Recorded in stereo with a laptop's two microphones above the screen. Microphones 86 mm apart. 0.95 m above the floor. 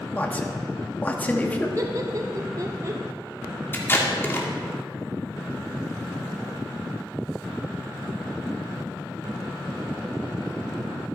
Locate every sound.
0.1 s a man speaking: 20° left (ahead or behind), 1.6 m
1.8 s laughter: 40° right (ahead or behind), 0.7 m
3.7 s tape being pulled: 25° left (ahead or behind), 2 m